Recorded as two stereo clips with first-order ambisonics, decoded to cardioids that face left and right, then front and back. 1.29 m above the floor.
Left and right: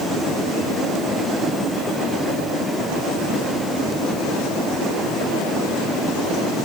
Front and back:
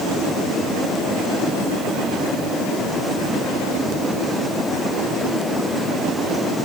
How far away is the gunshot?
I don't hear a gunshot.